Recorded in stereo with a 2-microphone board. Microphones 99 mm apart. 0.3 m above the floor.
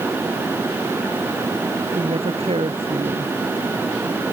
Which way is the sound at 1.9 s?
70° right (ahead or behind).